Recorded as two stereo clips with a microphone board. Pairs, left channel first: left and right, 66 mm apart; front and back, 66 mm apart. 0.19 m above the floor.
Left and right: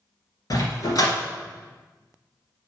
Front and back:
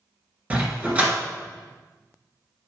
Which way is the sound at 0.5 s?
115° left.